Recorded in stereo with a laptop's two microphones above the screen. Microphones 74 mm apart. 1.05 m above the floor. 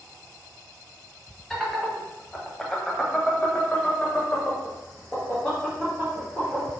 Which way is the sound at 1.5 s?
5° left (ahead or behind).